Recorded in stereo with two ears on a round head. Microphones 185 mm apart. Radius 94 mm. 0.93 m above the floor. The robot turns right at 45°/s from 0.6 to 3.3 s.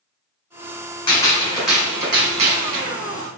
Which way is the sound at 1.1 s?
155° left.